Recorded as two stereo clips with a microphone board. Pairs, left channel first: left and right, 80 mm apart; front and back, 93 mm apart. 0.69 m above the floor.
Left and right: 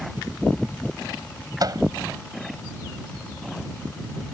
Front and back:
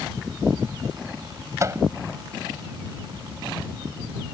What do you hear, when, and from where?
1.6 s a microwave: 125° right